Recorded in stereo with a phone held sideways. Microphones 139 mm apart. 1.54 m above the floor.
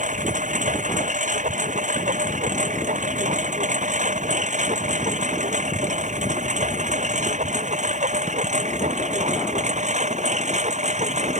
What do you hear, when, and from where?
0.0 s a lawn mower: 65° right (ahead or behind); by 11.4 s 55° right (ahead or behind)